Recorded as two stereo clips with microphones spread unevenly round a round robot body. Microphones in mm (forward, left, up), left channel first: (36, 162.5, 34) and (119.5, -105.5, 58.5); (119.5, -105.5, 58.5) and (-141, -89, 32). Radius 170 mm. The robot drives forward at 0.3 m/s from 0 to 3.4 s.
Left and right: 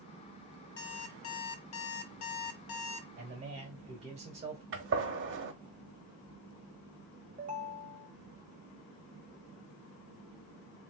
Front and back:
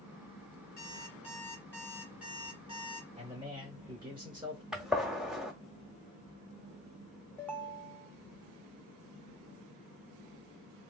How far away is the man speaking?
About 1.4 m.